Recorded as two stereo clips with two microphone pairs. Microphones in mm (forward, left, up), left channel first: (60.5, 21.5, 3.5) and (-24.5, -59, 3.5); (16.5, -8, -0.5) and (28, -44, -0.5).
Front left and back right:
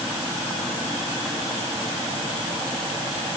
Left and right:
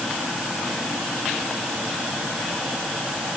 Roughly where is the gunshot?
I don't hear a gunshot.